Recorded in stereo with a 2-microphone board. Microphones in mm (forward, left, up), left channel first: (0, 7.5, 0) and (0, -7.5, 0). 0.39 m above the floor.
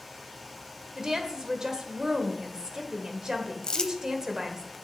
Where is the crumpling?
55° left (ahead or behind), 0.7 m.